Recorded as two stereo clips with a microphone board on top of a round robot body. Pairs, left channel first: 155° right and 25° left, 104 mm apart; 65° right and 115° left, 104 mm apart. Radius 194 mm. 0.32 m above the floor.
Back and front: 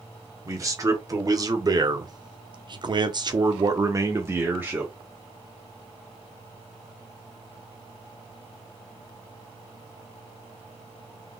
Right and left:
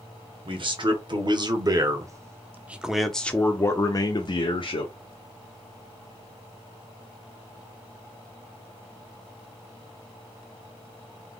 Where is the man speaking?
80° left, 2 m; by 4.9 s 50° right, 1.5 m.